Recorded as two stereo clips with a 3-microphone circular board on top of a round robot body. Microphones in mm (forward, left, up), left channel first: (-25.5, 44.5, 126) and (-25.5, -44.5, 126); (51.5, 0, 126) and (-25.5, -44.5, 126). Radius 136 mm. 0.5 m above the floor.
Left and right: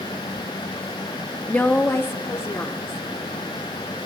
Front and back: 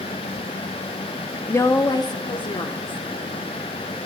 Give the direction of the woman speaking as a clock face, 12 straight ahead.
11 o'clock.